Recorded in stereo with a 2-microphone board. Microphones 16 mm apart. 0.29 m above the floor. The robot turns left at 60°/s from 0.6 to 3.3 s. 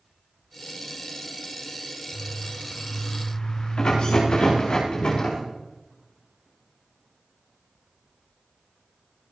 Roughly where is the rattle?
Left.